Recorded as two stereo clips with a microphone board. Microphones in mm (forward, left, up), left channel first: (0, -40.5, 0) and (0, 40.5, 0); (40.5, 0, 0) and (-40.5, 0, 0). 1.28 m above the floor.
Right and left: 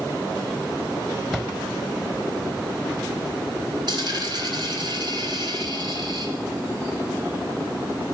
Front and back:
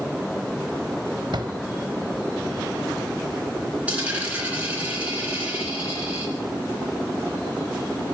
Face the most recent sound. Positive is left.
turn(degrees=105)